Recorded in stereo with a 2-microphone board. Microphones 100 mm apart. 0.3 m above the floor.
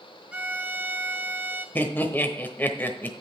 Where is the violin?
10° right (ahead or behind), 0.9 m.